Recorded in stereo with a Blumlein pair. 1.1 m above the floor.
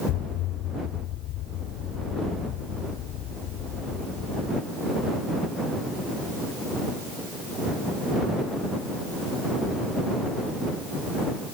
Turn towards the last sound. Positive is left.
turn(degrees=35)